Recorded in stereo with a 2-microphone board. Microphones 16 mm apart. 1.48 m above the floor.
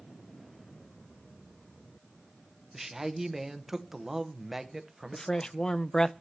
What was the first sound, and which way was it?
A man speaking, 20° right (ahead or behind).